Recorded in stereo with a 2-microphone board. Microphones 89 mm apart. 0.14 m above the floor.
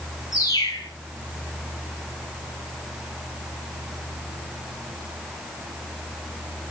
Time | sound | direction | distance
0.3 | a bird | 40° left (ahead or behind) | 8 m